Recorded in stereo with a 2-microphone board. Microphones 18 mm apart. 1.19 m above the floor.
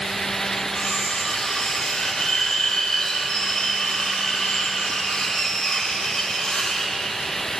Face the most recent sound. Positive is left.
turn(degrees=65)  # may be behind; listen again after turning